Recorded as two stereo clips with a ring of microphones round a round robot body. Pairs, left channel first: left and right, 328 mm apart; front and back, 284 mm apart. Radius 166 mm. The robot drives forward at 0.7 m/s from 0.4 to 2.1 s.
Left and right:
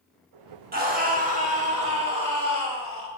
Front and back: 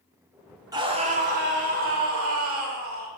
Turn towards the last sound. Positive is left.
turn(degrees=-155)